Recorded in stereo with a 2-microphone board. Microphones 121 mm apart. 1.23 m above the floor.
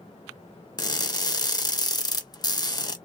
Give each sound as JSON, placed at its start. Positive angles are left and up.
{"t": 0.8, "sound": "crushing", "side_deg": 30, "distance_m": 0.6}